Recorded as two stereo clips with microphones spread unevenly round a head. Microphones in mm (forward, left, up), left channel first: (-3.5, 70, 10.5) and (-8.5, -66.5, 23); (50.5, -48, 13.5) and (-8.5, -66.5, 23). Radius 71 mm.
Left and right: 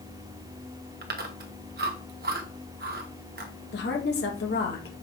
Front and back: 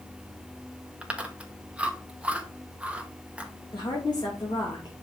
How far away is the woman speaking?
About 2 m.